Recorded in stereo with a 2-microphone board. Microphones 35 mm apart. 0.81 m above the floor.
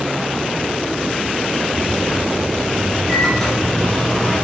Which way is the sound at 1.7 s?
10° left (ahead or behind).